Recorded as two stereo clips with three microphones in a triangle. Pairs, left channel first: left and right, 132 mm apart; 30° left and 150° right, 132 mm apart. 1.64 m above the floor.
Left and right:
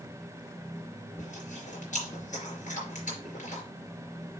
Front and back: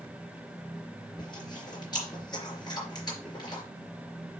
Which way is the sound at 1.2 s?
85° left.